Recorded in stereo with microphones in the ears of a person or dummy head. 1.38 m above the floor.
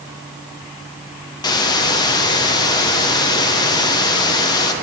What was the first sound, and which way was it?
A hiss, 20° left (ahead or behind).